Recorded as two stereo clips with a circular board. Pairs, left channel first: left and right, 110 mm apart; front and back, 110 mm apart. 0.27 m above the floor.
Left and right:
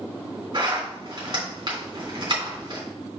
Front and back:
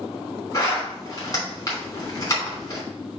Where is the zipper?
55° right, 3.5 m.